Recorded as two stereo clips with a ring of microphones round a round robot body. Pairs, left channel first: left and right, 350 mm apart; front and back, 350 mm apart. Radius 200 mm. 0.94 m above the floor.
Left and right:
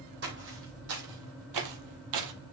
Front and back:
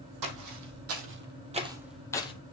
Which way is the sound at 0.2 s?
155° right.